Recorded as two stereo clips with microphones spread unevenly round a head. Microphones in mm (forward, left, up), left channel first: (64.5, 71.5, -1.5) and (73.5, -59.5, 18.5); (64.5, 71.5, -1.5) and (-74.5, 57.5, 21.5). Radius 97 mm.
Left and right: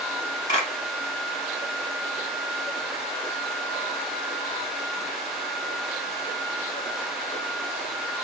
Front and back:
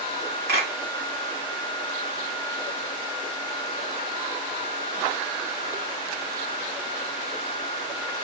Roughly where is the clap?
Behind.